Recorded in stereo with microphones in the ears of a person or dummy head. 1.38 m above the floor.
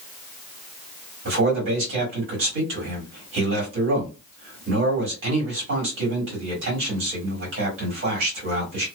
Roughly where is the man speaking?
Right.